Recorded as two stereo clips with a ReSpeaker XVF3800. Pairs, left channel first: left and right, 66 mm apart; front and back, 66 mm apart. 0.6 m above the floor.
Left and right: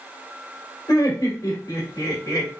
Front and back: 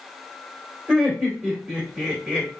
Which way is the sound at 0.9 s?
105° left.